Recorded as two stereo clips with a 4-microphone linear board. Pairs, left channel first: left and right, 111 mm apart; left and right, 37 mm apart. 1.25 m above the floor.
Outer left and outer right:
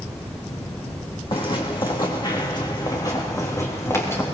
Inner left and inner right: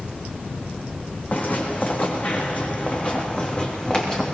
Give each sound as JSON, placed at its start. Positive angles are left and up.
{"t": 1.3, "sound": "footsteps", "side_deg": 55, "distance_m": 4.0}